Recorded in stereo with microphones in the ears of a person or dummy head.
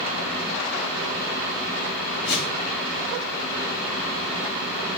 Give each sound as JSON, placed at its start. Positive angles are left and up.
{"t": 2.2, "sound": "a whoosh", "side_deg": 65, "distance_m": 2.5}